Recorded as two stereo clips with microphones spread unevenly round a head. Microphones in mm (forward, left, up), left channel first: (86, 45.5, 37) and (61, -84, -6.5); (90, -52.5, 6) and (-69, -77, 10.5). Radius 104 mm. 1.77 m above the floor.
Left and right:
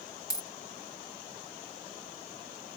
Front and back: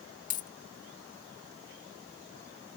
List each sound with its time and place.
0.3 s a dropped coin: 45° left